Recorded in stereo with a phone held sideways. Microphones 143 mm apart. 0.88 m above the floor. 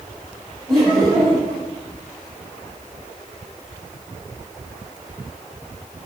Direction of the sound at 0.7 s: 5° right (ahead or behind).